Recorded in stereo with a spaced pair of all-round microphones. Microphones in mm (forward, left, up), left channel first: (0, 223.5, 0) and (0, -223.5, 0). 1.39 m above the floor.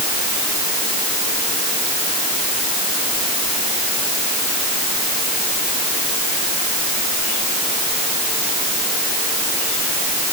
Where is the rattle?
I don't hear a rattle.